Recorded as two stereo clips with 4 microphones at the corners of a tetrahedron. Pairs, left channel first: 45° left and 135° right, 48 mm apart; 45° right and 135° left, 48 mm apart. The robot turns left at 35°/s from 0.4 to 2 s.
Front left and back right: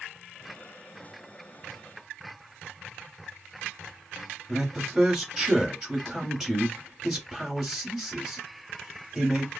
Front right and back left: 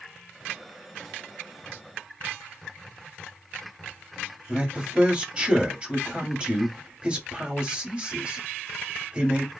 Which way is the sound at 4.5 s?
145° left.